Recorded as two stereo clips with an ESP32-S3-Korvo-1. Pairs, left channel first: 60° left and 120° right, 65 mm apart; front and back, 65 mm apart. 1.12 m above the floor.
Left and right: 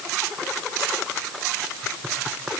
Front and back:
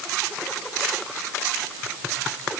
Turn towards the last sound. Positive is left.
No sound to turn to.